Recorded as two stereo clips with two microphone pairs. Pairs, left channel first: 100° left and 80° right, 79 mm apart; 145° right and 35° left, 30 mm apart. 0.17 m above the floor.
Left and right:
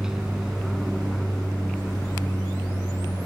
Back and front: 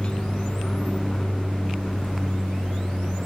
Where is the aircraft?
160° right; by 3.3 s 150° left.